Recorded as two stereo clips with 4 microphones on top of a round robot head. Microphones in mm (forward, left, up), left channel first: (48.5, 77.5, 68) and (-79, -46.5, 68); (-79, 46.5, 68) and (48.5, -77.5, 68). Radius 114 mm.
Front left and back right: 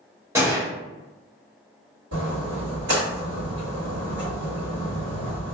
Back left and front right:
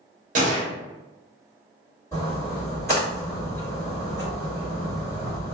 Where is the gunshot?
65° right, 0.6 m.